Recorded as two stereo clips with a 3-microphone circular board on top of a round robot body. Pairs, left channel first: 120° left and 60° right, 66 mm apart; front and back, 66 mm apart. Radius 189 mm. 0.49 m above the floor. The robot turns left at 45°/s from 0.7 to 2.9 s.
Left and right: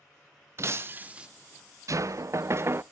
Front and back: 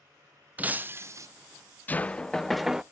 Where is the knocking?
55° right, 0.5 m; by 2.8 s 100° right, 0.5 m.